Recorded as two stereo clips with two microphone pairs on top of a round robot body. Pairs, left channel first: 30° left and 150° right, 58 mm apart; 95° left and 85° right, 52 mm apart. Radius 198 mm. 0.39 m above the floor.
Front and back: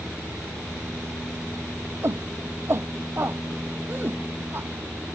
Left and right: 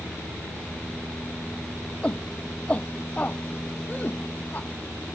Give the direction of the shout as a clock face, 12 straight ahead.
7 o'clock.